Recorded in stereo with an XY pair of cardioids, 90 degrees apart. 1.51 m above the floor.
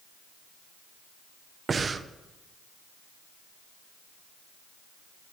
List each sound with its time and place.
1.7 s breathing: 40° right, 0.7 m